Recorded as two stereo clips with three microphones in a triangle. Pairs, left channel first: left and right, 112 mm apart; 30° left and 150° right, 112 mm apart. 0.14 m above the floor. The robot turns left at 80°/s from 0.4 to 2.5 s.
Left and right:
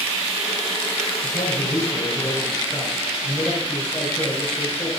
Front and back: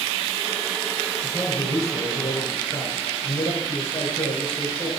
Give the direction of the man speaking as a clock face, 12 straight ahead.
8 o'clock.